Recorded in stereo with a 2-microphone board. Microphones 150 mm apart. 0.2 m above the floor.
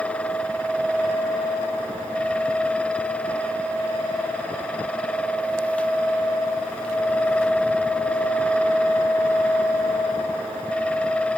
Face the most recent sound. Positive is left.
No sound to turn to.